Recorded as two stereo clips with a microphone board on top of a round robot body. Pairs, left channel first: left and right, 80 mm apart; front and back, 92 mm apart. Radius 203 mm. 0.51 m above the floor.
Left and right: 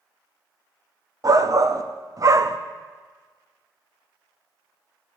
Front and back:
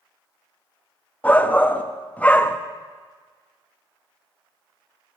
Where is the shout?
70° right, 1.0 m.